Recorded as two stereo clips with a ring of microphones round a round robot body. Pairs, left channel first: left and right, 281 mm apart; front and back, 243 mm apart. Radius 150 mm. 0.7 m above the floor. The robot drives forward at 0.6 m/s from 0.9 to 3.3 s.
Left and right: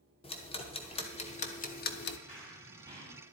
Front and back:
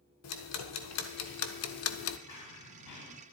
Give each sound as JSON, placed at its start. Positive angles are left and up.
{"t": 0.2, "sound": "ticking", "azimuth_deg": 20, "distance_m": 1.4}
{"t": 2.3, "sound": "running footsteps", "azimuth_deg": -15, "distance_m": 7.5}